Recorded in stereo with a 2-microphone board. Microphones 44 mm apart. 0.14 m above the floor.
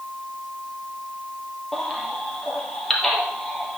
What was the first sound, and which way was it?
A baby crying, 5° left (ahead or behind).